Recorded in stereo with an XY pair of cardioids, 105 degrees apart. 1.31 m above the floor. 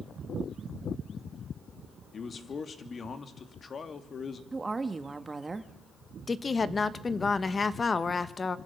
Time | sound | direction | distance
2.1 | a man speaking | 40° left | 2.5 m
4.5 | a woman speaking | 25° right | 1.8 m
6.3 | a woman speaking | 30° left | 1.6 m